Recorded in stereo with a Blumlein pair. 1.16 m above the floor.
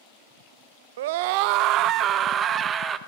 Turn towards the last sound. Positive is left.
turn(degrees=-20)